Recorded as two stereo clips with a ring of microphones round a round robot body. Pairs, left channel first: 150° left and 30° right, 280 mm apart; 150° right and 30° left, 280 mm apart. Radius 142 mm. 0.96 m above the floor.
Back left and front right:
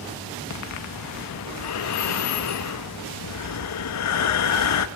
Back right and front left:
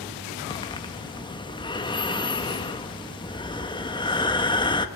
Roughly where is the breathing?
Behind left.